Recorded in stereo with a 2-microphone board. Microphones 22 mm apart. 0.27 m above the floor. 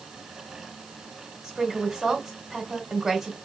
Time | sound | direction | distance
1.4 | a woman speaking | 5° right (ahead or behind) | 1.3 m